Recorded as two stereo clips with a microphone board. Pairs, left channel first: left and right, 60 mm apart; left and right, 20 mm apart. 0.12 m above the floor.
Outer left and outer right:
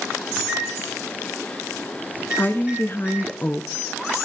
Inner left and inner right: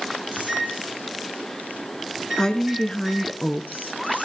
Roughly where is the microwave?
Centre.